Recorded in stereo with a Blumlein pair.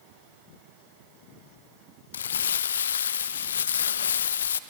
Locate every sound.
2.1 s crumpling: 65° left, 0.6 m